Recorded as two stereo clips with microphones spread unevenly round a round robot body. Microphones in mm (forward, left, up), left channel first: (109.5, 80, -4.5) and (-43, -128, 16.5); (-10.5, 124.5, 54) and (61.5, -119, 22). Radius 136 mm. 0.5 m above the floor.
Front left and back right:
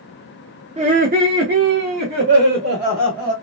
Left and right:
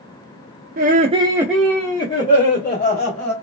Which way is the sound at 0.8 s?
65° right.